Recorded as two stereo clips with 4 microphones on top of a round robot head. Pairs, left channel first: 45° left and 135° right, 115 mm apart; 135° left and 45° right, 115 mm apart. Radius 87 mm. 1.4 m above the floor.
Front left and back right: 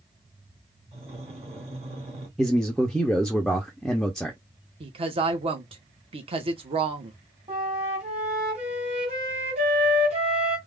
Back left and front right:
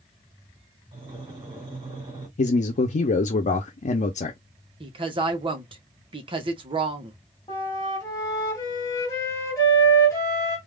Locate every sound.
0.9 s breathing: 100° right, 3 m
2.4 s a man speaking: 135° left, 0.7 m
4.8 s a woman speaking: 95° right, 1.3 m
7.5 s a flute: 165° right, 1.8 m